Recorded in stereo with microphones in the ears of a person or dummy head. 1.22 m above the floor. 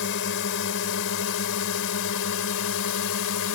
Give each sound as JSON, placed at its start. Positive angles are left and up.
{"t": 0.0, "sound": "a drone", "side_deg": 65}